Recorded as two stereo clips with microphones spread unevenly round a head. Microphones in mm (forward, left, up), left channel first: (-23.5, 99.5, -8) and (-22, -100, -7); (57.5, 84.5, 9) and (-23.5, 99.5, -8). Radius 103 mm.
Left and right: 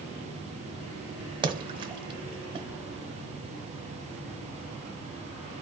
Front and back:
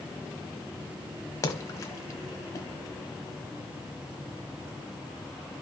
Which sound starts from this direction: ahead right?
A splash, at 1.4 s.